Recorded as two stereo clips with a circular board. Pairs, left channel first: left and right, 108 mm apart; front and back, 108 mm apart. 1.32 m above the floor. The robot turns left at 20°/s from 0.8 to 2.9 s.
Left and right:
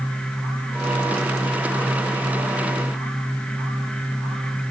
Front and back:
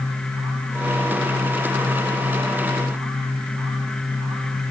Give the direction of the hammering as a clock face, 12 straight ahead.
No hammering in this recording.